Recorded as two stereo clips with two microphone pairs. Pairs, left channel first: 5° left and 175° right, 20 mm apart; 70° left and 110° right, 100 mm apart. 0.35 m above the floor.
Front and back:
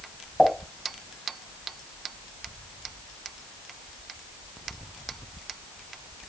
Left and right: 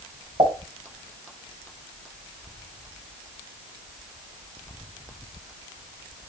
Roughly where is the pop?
Right.